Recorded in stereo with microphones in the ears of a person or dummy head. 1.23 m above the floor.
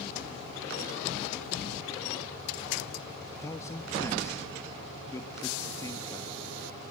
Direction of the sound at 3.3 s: 15° left (ahead or behind).